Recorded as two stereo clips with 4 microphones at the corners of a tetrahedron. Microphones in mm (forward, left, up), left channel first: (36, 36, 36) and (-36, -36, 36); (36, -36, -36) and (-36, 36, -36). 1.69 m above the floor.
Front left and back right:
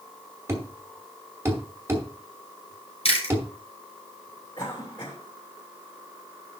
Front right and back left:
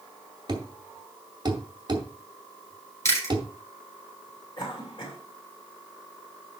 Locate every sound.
0.5 s a thud: 165° left, 2 m
3.0 s chewing: 15° left, 6 m
4.6 s a cough: 5° right, 6 m